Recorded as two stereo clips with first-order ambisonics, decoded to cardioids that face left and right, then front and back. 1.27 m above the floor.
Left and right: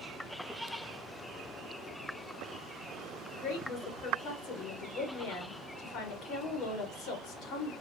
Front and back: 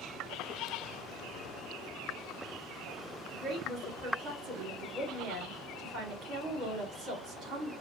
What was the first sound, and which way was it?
A woman speaking, 125° left.